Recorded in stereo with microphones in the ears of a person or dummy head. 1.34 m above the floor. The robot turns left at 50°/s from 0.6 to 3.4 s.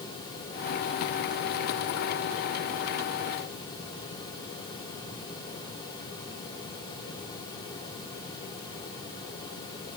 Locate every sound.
Only background noise.